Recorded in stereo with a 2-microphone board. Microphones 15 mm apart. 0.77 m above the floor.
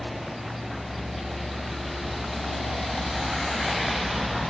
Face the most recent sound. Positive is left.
turn(degrees=-20)  # may be behind; listen again after turning